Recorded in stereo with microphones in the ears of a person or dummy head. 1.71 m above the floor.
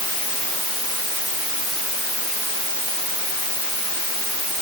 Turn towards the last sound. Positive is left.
No sound to turn to.